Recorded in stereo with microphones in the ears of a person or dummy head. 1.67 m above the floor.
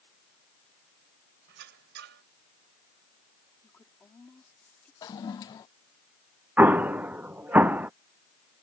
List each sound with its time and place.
1.5 s a squeak: 75° right (ahead or behind)
3.6 s a woman speaking: 10° left (ahead or behind)
5.0 s a toilet flushing: 25° left (ahead or behind)
6.6 s an explosion: 10° right (ahead or behind)